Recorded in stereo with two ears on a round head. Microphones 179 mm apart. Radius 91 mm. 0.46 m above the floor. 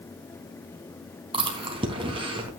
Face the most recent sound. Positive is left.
turn(degrees=-25)  # may be behind; listen again after turning